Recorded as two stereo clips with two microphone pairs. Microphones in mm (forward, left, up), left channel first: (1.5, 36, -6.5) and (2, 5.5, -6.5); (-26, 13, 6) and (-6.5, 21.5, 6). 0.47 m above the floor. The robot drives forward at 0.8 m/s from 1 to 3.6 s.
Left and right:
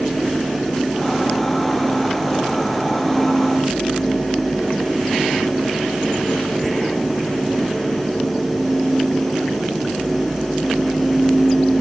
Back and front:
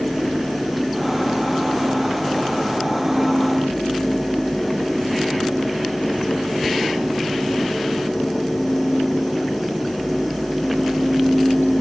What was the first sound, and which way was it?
Only background noise.